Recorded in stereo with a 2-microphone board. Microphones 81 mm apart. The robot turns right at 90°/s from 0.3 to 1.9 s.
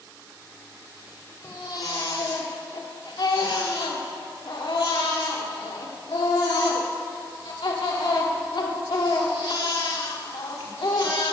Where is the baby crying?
30° left, 1.6 m; by 11.3 s 75° left, 1.6 m.